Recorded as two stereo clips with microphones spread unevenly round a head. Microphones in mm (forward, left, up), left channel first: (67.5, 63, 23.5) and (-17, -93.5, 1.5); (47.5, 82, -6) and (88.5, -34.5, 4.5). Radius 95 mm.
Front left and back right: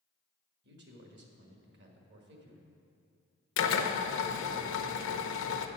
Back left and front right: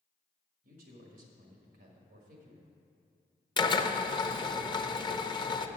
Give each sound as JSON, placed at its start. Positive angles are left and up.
{"t": 0.6, "sound": "a man speaking", "azimuth_deg": -95, "distance_m": 1.6}
{"t": 3.6, "sound": "a drill", "azimuth_deg": 55, "distance_m": 0.8}